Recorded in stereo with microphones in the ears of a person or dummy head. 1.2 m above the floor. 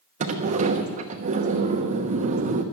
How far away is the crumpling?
I don't hear crumpling.